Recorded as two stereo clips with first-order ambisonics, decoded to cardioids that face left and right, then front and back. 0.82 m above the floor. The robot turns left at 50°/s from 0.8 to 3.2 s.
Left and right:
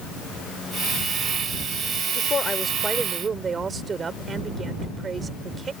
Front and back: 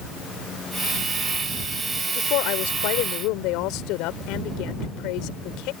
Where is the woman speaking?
35° left; by 5.7 s 20° right.